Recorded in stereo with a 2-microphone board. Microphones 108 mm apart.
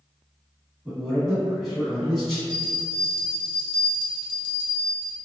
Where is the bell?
45° left (ahead or behind), 0.7 m.